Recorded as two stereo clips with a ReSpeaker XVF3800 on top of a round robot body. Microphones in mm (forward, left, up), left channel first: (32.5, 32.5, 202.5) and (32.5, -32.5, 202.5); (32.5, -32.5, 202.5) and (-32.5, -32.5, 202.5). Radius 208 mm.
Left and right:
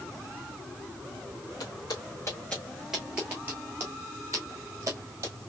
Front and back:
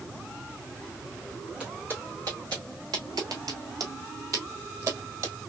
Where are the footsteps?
105° left, 0.7 m; by 5.4 s 140° right, 1.8 m.